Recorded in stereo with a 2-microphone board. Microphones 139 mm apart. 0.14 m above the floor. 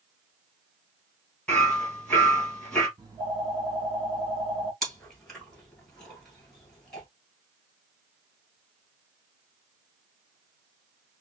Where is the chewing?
5° left (ahead or behind), 1.9 m.